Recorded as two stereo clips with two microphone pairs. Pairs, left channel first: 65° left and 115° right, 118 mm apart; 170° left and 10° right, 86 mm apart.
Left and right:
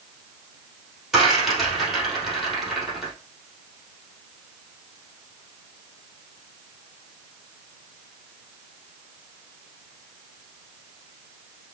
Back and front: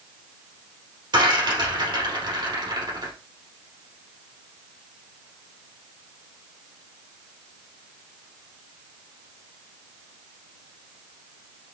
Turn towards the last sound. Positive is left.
turn(degrees=-30)